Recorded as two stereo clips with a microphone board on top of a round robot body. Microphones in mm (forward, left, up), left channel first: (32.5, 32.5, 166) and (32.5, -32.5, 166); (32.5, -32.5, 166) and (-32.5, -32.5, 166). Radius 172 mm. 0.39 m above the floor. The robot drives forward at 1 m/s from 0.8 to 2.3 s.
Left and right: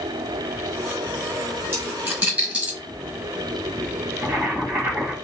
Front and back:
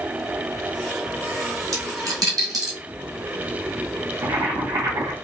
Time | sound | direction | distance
1.7 | a dropped coin | 155° right | 1.3 m
4.2 | boiling | 160° right | 1.8 m